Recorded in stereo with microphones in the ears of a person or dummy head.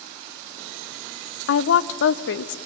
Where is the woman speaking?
80° left, 0.7 m.